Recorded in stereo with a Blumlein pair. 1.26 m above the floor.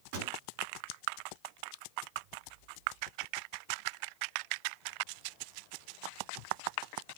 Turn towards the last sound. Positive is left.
turn(degrees=-50)